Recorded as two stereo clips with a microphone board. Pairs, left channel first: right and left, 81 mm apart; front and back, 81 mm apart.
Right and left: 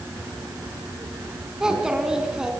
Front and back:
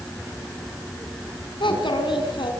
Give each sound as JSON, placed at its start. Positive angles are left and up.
{"t": 1.6, "sound": "a child speaking", "azimuth_deg": 10, "distance_m": 5.0}